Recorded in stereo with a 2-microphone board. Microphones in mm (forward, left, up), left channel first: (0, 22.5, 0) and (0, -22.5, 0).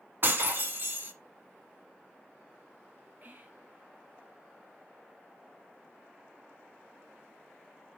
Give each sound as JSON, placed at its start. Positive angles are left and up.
{"t": 0.2, "sound": "breaking glass", "side_deg": -50, "distance_m": 1.2}
{"t": 3.2, "sound": "whispering", "side_deg": -40, "distance_m": 1.8}